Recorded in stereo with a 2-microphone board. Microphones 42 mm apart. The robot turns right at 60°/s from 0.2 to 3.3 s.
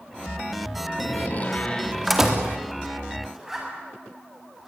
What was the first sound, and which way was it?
A door slam, 115° left.